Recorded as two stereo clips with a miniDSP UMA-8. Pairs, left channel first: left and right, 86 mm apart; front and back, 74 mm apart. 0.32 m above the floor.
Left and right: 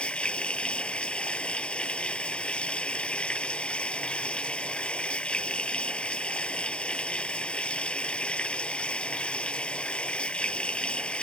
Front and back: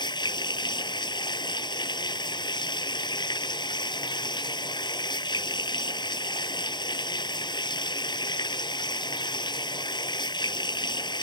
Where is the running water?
10° left.